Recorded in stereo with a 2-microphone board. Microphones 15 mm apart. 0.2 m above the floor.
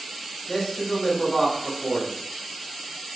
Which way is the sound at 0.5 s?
30° left (ahead or behind).